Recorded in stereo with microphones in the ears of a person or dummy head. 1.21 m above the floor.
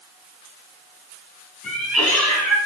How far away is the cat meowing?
About 4 m.